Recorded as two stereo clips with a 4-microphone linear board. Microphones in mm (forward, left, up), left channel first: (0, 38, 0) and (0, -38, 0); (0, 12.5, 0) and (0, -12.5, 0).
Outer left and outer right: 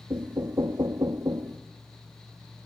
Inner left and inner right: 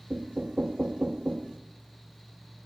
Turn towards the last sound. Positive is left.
turn(degrees=-70)  # may be behind; listen again after turning